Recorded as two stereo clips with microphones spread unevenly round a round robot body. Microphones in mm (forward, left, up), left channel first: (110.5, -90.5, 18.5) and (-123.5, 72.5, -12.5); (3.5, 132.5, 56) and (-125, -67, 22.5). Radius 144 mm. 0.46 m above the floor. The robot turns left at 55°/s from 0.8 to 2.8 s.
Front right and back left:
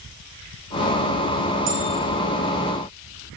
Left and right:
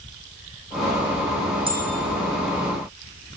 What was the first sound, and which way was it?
A bell, 170° left.